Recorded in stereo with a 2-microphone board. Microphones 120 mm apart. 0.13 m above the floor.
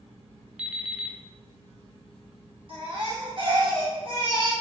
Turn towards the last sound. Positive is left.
turn(degrees=-55)  # may be behind; listen again after turning